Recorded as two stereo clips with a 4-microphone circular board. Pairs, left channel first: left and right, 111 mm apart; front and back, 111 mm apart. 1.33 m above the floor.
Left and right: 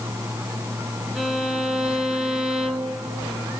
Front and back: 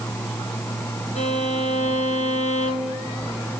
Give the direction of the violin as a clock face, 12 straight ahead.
12 o'clock.